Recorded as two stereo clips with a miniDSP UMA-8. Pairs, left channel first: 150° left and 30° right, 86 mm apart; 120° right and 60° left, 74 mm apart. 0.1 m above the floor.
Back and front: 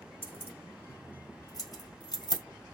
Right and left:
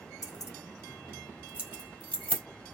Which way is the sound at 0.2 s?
145° right.